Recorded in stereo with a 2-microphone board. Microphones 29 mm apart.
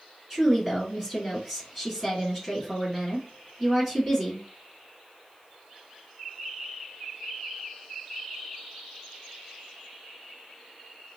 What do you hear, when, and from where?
0.3 s a woman speaking: 10° right (ahead or behind), 1.4 m